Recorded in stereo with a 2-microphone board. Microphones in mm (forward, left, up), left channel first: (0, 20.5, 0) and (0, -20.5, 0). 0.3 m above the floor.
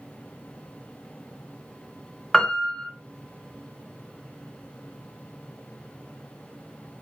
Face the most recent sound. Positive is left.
turn(degrees=0)  # may be behind; listen again after turning